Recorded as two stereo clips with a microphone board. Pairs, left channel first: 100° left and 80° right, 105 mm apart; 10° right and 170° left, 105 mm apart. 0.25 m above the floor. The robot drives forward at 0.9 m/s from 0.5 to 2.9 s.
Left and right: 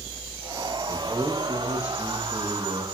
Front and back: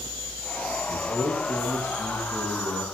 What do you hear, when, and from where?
0.9 s a man speaking: 150° right, 6.5 m; by 2.8 s 155° right, 8 m